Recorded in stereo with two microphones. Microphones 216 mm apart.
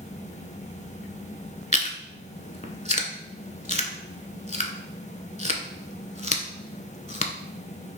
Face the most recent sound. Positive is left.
turn(degrees=35)  # may be behind; listen again after turning